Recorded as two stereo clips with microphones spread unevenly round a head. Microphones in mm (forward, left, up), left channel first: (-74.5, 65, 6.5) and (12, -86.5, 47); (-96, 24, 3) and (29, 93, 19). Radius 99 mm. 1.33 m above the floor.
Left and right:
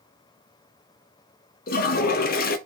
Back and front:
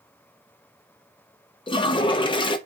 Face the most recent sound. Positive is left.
turn(degrees=155)